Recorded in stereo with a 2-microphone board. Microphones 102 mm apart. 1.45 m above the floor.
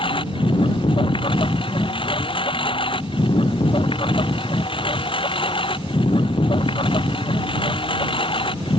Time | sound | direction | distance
0.0 | a lawn mower | 60° left (ahead or behind) | ?